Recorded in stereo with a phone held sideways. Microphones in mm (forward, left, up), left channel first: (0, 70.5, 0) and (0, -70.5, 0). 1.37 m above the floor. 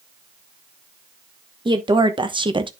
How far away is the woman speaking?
About 1.3 m.